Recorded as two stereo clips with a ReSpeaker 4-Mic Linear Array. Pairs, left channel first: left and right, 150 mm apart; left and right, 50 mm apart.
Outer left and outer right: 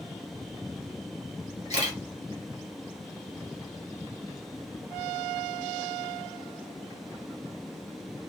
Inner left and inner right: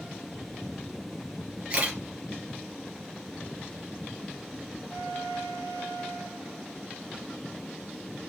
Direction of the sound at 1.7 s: 30° right (ahead or behind).